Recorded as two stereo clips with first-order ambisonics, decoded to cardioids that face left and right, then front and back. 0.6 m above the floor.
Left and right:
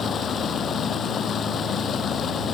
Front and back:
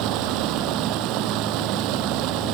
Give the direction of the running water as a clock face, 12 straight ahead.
7 o'clock.